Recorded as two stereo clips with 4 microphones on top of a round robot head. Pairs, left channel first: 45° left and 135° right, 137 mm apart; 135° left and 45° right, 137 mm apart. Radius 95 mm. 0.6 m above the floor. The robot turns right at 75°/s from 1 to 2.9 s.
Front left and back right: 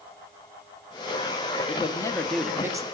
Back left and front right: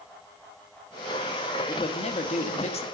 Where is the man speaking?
80° left, 0.9 m; by 2.8 s 170° left, 0.9 m.